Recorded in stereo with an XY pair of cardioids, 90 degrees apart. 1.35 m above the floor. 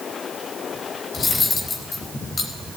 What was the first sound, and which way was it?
Cutlery clinking, 45° left.